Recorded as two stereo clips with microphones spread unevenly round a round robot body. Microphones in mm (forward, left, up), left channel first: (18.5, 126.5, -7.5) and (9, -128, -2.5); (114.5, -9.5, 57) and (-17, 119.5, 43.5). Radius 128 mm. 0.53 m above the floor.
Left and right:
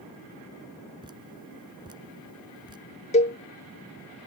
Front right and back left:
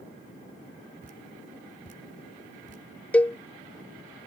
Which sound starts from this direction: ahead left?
A cowbell, at 3.1 s.